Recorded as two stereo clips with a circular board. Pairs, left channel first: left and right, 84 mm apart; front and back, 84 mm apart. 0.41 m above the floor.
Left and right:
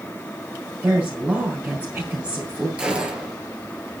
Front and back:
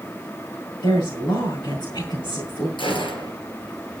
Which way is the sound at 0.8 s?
20° right.